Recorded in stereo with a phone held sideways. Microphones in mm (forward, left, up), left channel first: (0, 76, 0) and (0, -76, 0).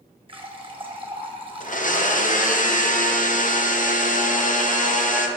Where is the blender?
60° left (ahead or behind), 0.6 m.